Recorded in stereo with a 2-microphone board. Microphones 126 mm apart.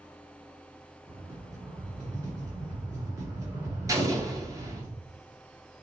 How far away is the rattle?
About 2 m.